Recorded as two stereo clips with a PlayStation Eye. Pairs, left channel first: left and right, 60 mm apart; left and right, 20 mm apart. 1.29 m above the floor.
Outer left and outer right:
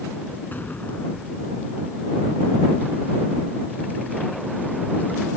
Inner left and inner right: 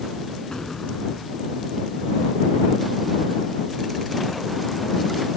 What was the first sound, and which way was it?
An explosion, 30° left (ahead or behind).